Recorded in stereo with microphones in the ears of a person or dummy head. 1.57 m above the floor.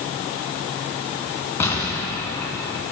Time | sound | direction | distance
1.6 | an explosion | centre (ahead or behind) | 1.8 m